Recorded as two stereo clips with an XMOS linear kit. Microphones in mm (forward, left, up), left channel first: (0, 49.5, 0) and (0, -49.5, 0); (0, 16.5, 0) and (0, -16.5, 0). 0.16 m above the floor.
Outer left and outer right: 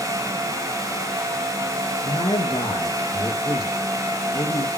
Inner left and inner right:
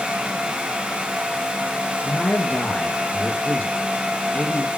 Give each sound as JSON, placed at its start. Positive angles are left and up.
{"t": 2.0, "sound": "a man speaking", "side_deg": 60, "distance_m": 3.0}